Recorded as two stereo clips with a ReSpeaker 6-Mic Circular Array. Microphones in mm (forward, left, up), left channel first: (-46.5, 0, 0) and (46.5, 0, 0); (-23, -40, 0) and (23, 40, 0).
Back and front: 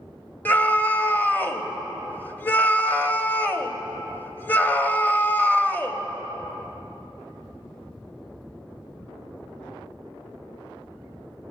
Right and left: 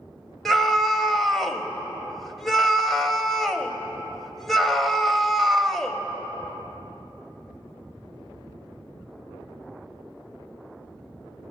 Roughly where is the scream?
Behind left.